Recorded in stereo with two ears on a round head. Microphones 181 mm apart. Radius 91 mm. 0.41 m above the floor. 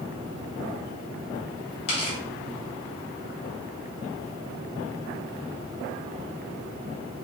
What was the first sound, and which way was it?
Tearing paper, 30° left (ahead or behind).